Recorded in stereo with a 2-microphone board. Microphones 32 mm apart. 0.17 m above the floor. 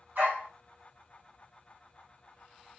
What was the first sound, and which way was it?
A dog barking, 80° right.